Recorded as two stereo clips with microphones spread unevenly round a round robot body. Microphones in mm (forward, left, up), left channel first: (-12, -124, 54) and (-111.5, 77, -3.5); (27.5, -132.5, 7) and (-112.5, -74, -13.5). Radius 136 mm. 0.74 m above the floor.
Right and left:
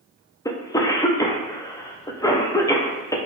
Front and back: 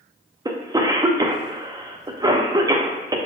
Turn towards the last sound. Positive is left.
turn(degrees=-145)